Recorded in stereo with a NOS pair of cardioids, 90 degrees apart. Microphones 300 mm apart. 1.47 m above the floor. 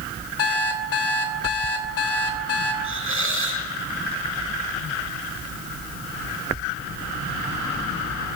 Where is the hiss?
45° right, 6.5 m.